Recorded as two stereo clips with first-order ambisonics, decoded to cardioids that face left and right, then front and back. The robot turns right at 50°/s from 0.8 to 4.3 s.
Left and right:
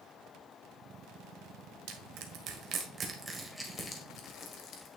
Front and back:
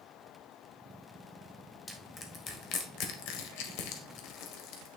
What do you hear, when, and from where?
1.9 s crushing: 85° right, 1.3 m; by 4.9 s 35° left, 1.3 m